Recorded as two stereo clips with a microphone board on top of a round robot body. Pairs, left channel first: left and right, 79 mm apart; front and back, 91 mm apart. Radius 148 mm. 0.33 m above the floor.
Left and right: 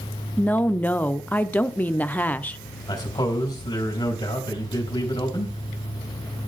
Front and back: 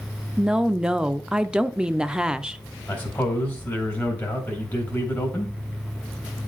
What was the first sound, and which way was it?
A woman speaking, 110° left.